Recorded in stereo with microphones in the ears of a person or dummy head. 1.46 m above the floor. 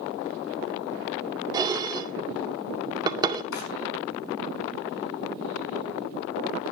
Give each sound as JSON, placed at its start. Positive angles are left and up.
{"t": 1.5, "sound": "dishes clattering", "side_deg": -20, "distance_m": 2.0}
{"t": 3.5, "sound": "a drawer", "side_deg": 75, "distance_m": 5.5}